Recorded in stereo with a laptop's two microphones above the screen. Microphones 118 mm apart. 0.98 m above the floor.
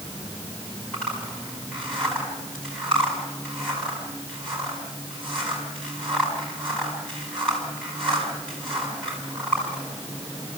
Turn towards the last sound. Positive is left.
turn(degrees=5)  # may be behind; listen again after turning